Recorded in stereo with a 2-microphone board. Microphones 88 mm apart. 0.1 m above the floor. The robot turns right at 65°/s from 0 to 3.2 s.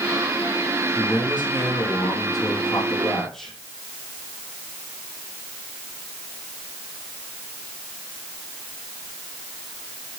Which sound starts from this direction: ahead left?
A man speaking, at 0.9 s.